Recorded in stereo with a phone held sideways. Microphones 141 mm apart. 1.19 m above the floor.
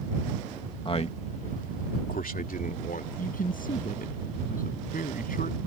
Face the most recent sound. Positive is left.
turn(degrees=85)